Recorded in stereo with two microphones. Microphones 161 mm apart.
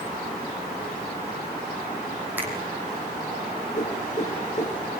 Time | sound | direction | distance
2.4 | a finger snap | 10° right (ahead or behind) | 4.5 m
3.7 | a whoosh | 50° left (ahead or behind) | 2.5 m